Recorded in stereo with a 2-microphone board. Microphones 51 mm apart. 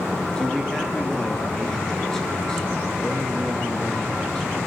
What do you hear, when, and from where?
0.4 s a man speaking: 10° left (ahead or behind), 7.5 m